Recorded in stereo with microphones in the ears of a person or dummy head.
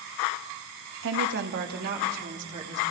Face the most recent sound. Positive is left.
turn(degrees=-40)  # may be behind; listen again after turning